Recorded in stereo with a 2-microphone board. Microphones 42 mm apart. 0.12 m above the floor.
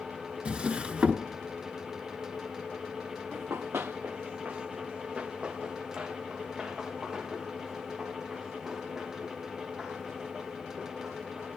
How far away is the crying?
I don't hear crying.